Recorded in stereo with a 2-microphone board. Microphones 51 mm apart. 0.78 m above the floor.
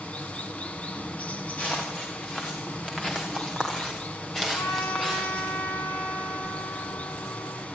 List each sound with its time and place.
0.0 s running water: 25° left (ahead or behind), 2.5 m
1.6 s footsteps: 30° left (ahead or behind), 7 m; by 5.5 s 5° left (ahead or behind), 8.5 m
4.5 s a trumpet: 75° left (ahead or behind), 8.5 m